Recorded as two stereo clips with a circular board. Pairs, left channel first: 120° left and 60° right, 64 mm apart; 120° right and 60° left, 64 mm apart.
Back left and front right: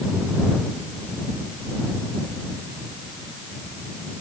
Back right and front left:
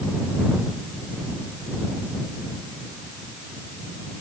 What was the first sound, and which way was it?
Only background noise.